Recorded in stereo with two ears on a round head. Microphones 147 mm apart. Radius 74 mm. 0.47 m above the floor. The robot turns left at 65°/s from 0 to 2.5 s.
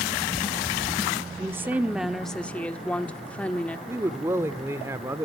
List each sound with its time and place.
1.4 s a woman speaking: 15° right (ahead or behind), 1.1 m; by 3.8 s 10° left (ahead or behind), 1.1 m
3.9 s a man speaking: 15° right (ahead or behind), 1.3 m